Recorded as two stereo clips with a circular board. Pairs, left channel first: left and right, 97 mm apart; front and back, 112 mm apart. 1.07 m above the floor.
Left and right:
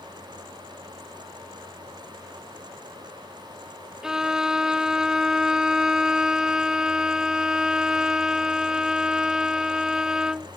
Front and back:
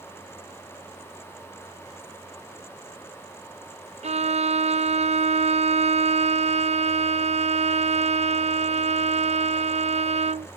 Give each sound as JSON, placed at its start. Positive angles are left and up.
{"t": 4.0, "sound": "a violin", "azimuth_deg": -175}